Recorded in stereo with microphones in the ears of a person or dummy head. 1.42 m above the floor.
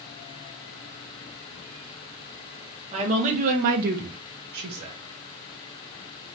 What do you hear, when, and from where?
2.9 s a woman speaking: 40° right (ahead or behind), 1.2 m